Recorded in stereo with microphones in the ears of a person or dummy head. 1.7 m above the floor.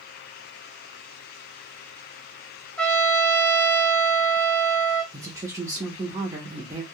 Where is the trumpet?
5° left (ahead or behind), 0.7 m.